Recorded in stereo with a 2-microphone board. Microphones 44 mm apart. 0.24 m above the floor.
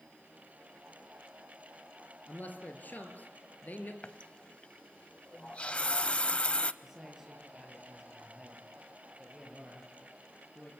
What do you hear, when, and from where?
2.3 s a man speaking: 40° left (ahead or behind), 4 m
4.0 s a running tap: 25° left (ahead or behind), 0.6 m
6.8 s a man speaking: 10° right (ahead or behind), 6.5 m